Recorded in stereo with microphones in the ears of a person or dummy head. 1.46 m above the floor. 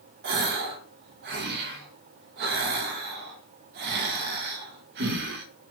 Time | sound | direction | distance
0.2 | a gasp | 55° right (ahead or behind) | 0.6 m